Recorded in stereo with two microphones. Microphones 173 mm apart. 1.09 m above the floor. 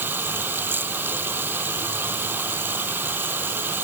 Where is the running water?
10° right (ahead or behind).